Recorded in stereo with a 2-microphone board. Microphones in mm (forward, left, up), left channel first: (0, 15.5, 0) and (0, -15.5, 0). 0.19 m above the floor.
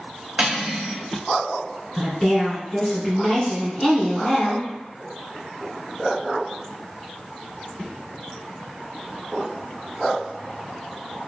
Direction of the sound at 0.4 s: 35° right (ahead or behind).